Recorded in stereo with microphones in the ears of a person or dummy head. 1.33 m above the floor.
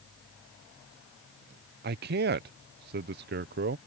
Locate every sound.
1.8 s a man speaking: 50° right (ahead or behind)